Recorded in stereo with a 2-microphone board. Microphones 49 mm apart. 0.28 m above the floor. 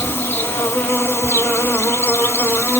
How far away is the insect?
About 0.8 m.